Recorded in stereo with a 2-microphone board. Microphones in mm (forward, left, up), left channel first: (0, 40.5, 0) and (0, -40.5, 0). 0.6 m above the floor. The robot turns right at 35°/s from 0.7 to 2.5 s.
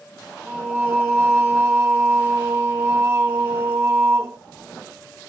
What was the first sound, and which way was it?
Singing, 20° right (ahead or behind).